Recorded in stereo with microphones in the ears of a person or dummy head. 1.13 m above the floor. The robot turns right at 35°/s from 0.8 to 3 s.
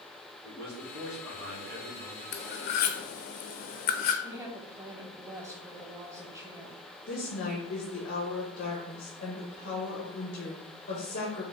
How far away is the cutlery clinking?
About 0.5 m.